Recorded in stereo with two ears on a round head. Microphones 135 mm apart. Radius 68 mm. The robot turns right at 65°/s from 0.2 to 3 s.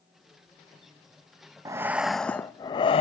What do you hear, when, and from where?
1.6 s breathing: 30° right, 0.6 m; by 3.0 s 55° left, 0.6 m